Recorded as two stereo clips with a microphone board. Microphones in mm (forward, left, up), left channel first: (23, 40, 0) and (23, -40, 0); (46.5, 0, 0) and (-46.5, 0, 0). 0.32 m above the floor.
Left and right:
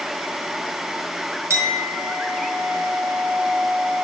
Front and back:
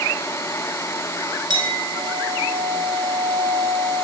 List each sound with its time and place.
1.5 s a clink: 145° right, 4 m